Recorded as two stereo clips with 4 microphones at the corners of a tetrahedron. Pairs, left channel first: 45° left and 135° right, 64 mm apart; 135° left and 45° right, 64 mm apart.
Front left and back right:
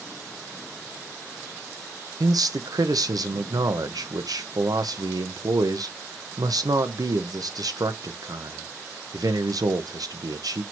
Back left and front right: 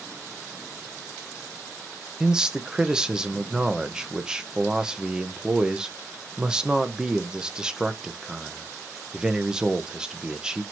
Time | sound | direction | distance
2.2 | a man speaking | 125° right | 1.0 m